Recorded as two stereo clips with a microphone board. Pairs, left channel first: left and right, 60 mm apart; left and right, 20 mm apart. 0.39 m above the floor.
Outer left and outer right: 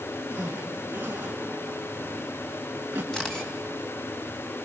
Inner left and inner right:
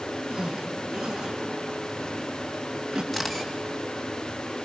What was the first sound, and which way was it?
A zipper, 30° right (ahead or behind).